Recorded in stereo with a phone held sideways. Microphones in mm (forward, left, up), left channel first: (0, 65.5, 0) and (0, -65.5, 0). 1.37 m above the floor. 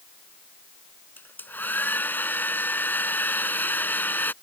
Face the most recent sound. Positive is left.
turn(degrees=15)  # may be behind; listen again after turning